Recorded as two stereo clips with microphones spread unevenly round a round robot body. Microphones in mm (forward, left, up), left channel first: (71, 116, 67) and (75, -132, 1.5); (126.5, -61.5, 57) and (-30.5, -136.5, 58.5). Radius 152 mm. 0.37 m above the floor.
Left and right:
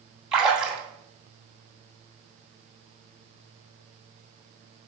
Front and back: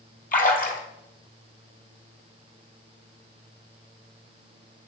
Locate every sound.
0.3 s a splash: 5° right, 2.5 m